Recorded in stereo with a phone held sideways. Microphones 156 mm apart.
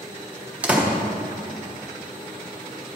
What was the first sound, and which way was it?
A door slam, 10° right (ahead or behind).